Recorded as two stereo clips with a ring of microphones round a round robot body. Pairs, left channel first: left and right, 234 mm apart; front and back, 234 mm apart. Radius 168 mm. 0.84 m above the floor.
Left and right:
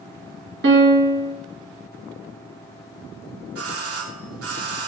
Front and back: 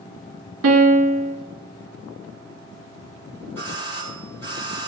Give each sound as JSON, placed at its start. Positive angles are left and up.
{"t": 0.6, "sound": "a piano", "azimuth_deg": -145, "distance_m": 1.2}
{"t": 3.5, "sound": "a doorbell", "azimuth_deg": -80, "distance_m": 3.0}